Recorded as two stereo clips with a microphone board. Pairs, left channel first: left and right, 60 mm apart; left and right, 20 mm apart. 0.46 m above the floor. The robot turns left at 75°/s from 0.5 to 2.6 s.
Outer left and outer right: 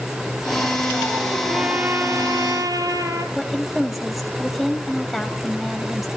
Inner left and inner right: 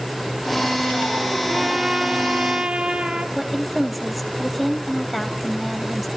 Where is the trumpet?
5° right, 2.5 m; by 3.2 s 90° right, 2.5 m.